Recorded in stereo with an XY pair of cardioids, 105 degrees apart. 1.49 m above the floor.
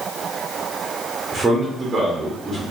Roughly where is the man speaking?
Ahead right.